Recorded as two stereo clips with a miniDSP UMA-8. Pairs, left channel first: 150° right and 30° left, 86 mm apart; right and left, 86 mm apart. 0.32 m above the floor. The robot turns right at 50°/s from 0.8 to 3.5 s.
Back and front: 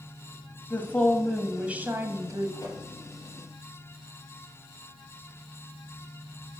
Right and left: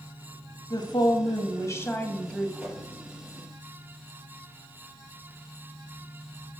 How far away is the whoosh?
About 3.5 m.